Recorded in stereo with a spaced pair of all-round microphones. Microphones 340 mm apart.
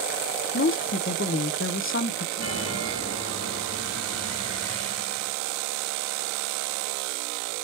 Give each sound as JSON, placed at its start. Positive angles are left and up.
{"t": 0.5, "sound": "a woman speaking", "side_deg": 35, "distance_m": 0.6}
{"t": 2.4, "sound": "a chime", "side_deg": -40, "distance_m": 3.0}